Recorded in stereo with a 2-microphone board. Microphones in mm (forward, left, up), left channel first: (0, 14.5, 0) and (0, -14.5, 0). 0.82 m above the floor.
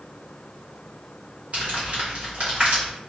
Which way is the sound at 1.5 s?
55° right (ahead or behind).